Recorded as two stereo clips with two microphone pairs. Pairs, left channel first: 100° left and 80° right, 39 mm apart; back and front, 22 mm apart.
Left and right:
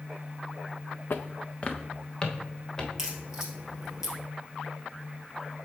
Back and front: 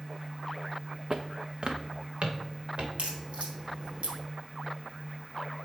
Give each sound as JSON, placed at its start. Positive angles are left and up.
{"t": 1.1, "sound": "footsteps", "azimuth_deg": 70, "distance_m": 0.6}
{"t": 3.0, "sound": "a crack", "azimuth_deg": -10, "distance_m": 2.0}